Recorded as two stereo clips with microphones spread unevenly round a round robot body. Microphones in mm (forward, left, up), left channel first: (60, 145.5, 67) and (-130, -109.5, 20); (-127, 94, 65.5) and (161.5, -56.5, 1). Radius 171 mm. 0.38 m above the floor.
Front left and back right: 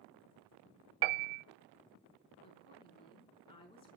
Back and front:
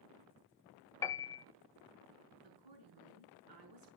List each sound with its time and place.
1.0 s a piano: 125° right, 0.8 m
2.4 s a woman speaking: 25° right, 5.5 m